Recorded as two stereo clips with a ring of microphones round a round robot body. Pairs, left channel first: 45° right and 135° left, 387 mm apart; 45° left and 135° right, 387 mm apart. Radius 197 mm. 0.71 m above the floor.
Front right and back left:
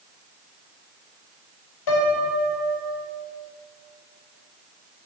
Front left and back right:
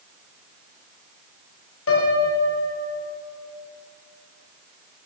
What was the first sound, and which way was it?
A piano, 10° right.